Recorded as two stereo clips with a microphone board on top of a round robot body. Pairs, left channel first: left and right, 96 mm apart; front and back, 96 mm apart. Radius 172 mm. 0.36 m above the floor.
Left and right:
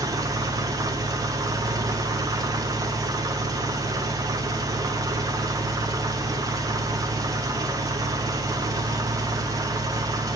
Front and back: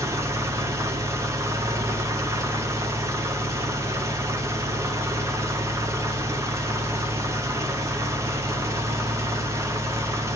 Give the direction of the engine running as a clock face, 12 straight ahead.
4 o'clock.